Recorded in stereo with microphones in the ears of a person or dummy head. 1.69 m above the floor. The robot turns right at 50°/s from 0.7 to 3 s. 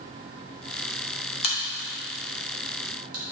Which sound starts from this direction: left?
A crack, at 1.4 s.